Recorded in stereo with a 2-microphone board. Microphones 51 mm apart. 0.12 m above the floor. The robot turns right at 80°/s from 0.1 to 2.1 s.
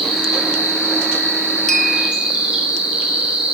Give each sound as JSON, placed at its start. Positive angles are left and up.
{"t": 0.0, "sound": "an insect", "azimuth_deg": 180, "distance_m": 3.0}
{"t": 1.7, "sound": "a clink", "side_deg": 10, "distance_m": 0.6}